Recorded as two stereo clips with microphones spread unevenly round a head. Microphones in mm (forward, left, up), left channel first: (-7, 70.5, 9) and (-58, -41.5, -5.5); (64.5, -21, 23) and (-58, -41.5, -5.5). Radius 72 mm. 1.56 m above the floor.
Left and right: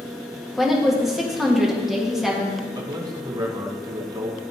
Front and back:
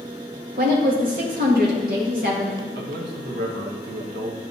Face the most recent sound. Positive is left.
turn(degrees=-175)